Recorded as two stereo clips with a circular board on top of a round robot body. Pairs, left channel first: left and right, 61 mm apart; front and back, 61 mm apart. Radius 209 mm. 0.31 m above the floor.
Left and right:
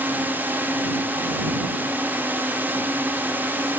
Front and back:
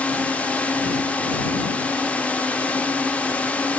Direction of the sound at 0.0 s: 55° right.